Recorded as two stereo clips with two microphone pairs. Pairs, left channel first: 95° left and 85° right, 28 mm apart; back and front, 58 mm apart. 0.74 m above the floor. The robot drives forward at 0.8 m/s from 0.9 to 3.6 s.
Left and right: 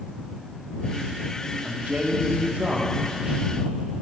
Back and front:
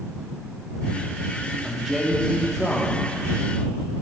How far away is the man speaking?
About 1.8 m.